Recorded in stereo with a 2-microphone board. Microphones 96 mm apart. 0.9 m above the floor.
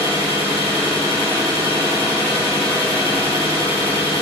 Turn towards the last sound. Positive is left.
turn(degrees=60)  # may be behind; listen again after turning